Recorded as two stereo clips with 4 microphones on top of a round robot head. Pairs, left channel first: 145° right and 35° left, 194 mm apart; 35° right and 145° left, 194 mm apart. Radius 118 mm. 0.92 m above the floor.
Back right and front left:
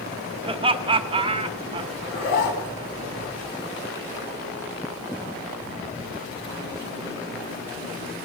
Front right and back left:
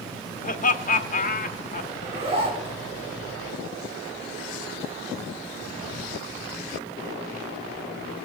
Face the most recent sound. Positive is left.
turn(degrees=-155)